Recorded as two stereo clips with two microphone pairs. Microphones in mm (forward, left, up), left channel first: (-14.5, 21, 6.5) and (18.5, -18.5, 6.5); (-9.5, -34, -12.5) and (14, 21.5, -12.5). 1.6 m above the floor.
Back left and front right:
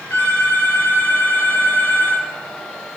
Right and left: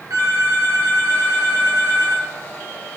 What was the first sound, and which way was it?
A phone ringing, 80° left.